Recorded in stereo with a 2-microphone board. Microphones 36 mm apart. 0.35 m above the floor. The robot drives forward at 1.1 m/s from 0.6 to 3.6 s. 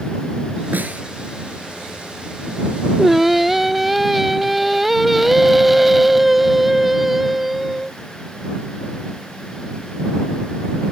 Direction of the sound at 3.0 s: Centre (ahead or behind).